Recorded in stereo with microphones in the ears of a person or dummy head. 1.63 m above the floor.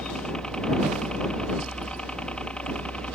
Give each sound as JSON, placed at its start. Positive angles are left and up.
{"t": 0.0, "sound": "a helicopter", "side_deg": 0}